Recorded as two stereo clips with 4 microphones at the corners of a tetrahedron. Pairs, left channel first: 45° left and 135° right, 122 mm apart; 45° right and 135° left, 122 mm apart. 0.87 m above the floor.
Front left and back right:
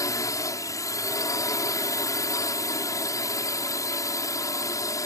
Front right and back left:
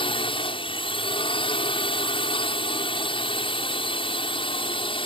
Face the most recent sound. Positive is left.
turn(degrees=-15)